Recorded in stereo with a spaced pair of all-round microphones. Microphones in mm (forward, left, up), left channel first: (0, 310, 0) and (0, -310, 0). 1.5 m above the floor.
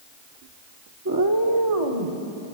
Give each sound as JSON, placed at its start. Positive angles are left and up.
{"t": 1.1, "sound": "a cat meowing", "side_deg": -25, "distance_m": 1.1}